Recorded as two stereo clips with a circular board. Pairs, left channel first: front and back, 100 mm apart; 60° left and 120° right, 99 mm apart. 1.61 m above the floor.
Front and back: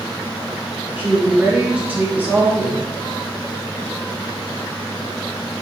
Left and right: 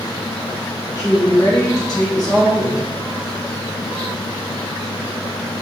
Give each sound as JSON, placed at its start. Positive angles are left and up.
{"t": 1.0, "sound": "a woman speaking", "azimuth_deg": 105, "distance_m": 1.5}